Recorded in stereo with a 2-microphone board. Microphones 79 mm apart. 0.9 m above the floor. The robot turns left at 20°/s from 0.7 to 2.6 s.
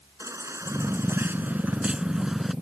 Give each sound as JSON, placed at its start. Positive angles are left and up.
{"t": 0.2, "sound": "a baby crying", "azimuth_deg": -140}